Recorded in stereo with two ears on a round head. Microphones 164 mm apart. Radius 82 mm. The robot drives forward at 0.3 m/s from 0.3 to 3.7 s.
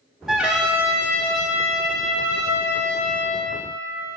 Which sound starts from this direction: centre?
A trumpet, at 0.3 s.